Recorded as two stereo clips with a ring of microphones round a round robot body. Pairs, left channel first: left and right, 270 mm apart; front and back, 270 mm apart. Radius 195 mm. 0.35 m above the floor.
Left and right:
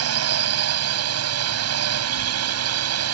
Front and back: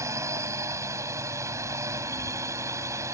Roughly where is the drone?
Right.